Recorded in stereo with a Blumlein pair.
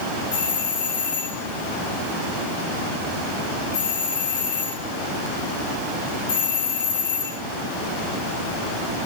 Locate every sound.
0.3 s a doorbell: 60° left, 4.5 m